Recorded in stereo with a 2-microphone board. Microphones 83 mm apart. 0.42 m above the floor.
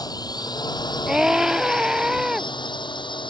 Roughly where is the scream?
Centre.